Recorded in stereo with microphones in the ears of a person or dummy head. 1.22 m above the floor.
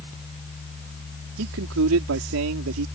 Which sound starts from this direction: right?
A man speaking, at 1.4 s.